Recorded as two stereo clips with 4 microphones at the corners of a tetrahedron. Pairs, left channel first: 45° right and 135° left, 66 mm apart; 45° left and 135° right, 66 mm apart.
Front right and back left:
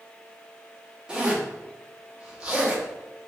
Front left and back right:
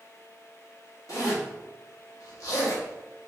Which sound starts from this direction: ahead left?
A zipper, at 1.1 s.